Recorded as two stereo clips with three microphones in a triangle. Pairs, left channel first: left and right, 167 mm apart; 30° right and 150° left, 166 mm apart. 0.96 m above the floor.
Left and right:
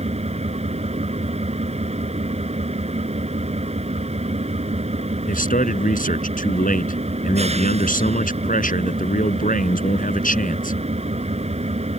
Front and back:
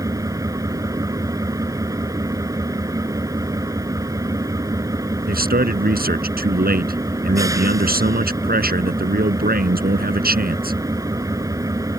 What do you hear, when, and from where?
0.0 s an engine running: 140° right
5.3 s a man speaking: 125° left